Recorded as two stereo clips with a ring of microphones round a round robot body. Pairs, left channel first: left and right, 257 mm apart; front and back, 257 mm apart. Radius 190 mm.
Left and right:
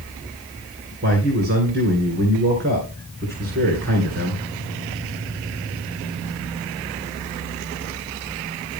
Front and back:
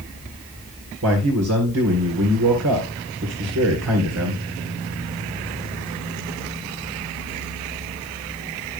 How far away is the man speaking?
About 3 m.